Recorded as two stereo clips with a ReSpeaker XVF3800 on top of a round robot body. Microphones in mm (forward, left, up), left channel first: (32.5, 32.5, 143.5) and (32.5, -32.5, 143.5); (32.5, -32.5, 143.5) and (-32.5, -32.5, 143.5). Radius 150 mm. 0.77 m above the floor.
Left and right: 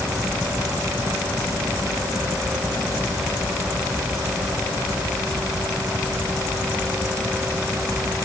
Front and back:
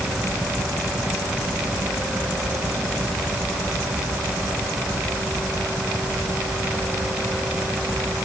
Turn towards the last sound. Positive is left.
No sound to turn to.